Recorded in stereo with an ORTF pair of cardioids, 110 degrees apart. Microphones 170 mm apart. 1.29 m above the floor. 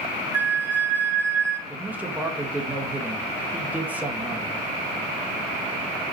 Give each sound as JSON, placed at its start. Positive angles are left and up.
{"t": 0.3, "sound": "a flute", "azimuth_deg": -10, "distance_m": 3.5}
{"t": 1.7, "sound": "a man speaking", "azimuth_deg": -10, "distance_m": 1.7}